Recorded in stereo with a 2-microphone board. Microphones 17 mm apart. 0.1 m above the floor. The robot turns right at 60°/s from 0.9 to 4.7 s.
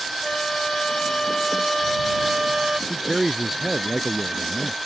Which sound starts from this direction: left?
A flute, at 0.2 s.